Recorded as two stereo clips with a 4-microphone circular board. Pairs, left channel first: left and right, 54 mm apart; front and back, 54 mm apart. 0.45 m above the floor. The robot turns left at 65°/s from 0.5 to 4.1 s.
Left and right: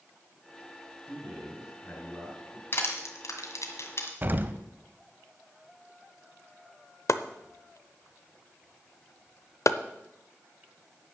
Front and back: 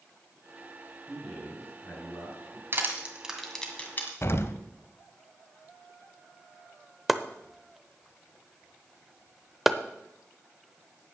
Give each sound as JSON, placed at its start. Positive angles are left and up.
{"t": 1.1, "sound": "a man speaking", "azimuth_deg": 95, "distance_m": 6.5}
{"t": 2.7, "sound": "crushing", "azimuth_deg": 140, "distance_m": 1.7}
{"t": 4.2, "sound": "an explosion", "azimuth_deg": -35, "distance_m": 0.6}
{"t": 7.1, "sound": "chopping", "azimuth_deg": 95, "distance_m": 0.6}